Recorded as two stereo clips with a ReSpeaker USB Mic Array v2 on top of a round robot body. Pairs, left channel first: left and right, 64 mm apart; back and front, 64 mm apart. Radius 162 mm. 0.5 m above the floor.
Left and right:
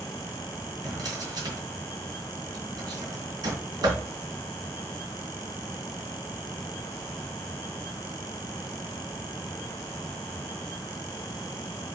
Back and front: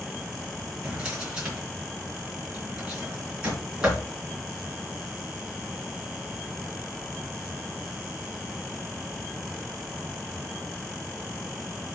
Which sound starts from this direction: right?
A drawer, at 0.8 s.